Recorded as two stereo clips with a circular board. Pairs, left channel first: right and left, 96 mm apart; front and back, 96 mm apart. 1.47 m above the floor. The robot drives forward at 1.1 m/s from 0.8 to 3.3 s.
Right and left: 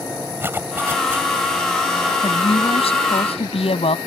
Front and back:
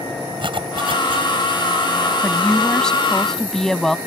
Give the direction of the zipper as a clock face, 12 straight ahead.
7 o'clock.